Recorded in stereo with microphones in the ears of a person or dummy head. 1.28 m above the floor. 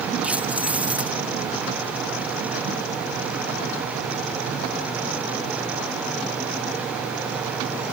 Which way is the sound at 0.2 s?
5° right (ahead or behind).